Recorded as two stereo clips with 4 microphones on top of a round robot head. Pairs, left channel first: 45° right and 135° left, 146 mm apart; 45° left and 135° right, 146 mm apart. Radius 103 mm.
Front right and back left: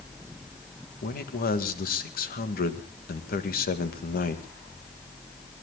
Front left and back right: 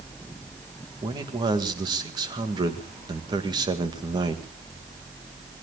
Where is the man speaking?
70° right, 2 m.